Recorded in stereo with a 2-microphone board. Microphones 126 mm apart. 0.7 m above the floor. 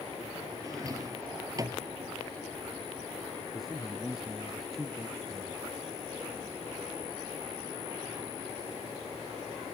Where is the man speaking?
5° right (ahead or behind).